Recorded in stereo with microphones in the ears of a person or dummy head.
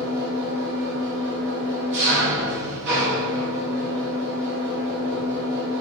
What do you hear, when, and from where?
0.0 s an engine running: 55° right (ahead or behind), 1.7 m